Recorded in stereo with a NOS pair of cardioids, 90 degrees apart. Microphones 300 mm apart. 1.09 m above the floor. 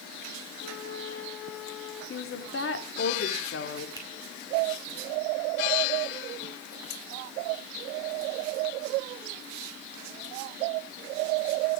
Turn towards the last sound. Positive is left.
turn(degrees=10)